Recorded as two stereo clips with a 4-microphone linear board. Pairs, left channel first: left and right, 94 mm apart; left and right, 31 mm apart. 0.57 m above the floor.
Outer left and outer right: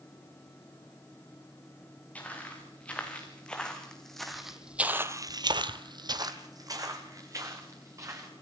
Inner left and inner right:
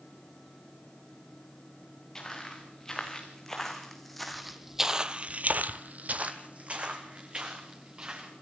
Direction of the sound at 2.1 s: 15° left (ahead or behind).